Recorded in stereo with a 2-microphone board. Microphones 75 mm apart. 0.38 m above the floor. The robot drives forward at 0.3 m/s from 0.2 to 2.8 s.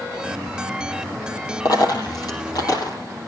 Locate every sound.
1.6 s a dropped coin: 55° left (ahead or behind), 4.5 m